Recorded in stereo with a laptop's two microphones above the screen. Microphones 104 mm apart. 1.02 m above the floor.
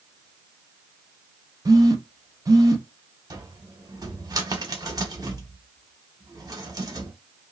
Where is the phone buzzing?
35° right (ahead or behind), 0.7 m.